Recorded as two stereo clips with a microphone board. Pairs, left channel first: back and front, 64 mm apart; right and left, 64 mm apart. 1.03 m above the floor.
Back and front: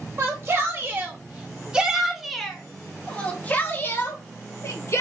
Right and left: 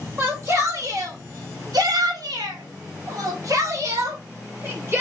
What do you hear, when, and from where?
0.2 s a shout: 45° left, 1.7 m; by 5.0 s 140° left, 1.9 m